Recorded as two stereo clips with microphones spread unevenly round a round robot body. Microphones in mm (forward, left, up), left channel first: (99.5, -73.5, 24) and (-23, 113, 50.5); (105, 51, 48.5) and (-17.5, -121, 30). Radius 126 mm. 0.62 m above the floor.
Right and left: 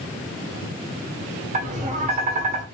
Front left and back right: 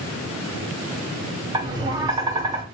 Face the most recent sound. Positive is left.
turn(degrees=175)